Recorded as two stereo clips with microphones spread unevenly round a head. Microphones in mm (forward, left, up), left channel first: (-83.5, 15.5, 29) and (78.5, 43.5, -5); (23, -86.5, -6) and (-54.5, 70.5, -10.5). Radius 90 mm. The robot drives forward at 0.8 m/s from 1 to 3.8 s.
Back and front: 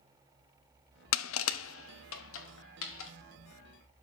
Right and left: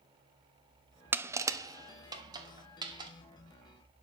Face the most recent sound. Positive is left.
turn(degrees=-175)